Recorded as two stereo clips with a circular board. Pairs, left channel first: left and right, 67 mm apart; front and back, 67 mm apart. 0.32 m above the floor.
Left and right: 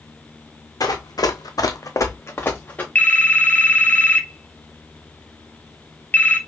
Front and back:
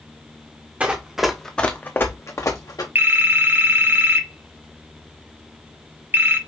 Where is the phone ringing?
145° left, 0.8 m.